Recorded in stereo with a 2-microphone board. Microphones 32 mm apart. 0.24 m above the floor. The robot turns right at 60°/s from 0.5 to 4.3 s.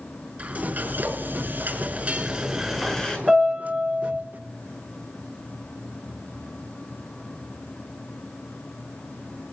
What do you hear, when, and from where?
0.4 s frying: 130° right, 6 m; by 3.2 s 30° left, 6 m
3.3 s a piano: 160° left, 7 m; by 4.2 s 140° right, 7 m